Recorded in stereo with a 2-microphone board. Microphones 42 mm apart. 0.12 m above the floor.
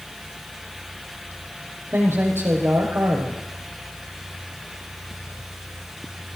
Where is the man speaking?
70° right (ahead or behind), 5 m.